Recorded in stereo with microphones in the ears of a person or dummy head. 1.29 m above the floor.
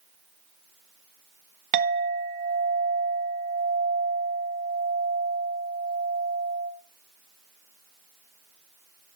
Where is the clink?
40° right (ahead or behind), 1.0 m.